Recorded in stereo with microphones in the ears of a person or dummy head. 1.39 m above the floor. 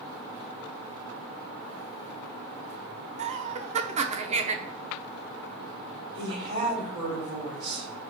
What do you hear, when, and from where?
3.2 s laughter: 35° right (ahead or behind), 0.8 m
6.1 s a woman speaking: 30° right (ahead or behind), 3.5 m